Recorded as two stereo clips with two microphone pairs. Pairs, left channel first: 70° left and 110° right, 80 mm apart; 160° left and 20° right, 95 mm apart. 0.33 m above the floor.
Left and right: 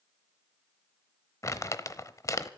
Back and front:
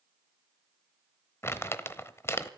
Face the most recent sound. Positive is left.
turn(degrees=105)